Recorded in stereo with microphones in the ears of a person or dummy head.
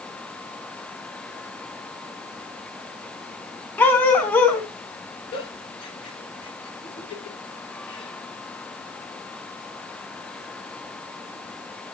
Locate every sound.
3.8 s a dog barking: 10° left (ahead or behind), 3.5 m
5.3 s a giggle: 35° left (ahead or behind), 7.5 m